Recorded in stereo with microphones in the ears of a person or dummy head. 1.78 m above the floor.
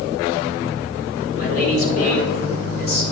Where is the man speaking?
50° left (ahead or behind), 4 m.